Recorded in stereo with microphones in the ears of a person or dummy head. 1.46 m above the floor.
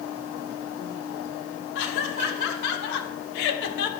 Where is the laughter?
70° left (ahead or behind), 3 m; by 3.9 s 65° left (ahead or behind), 1.8 m.